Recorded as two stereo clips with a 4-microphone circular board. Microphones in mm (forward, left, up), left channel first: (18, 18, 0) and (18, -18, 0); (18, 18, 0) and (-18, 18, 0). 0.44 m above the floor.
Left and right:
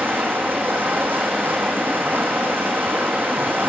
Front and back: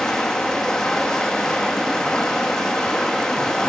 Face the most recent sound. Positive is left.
turn(degrees=-70)